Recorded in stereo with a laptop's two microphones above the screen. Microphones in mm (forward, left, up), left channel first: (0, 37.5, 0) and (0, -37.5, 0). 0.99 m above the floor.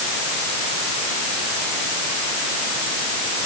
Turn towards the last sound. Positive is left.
No sound to turn to.